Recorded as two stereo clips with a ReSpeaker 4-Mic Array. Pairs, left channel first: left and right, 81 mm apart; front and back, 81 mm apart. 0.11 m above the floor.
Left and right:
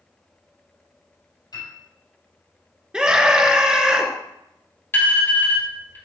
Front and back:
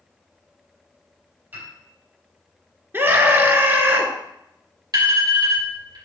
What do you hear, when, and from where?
1.5 s a piano: 115° left, 4.5 m
2.9 s a scream: 160° right, 1.4 m
4.9 s an alarm: 145° left, 3.5 m